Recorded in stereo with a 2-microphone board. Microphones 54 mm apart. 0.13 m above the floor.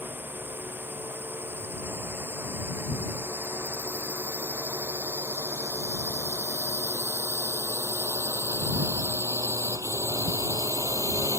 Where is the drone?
35° right (ahead or behind); by 11.4 s 70° right (ahead or behind).